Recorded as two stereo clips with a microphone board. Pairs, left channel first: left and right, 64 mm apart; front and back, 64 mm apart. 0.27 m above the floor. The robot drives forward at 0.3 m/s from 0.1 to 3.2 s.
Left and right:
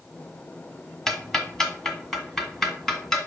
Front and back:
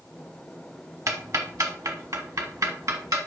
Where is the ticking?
170° left, 1.1 m; by 3.2 s 175° left, 1.7 m.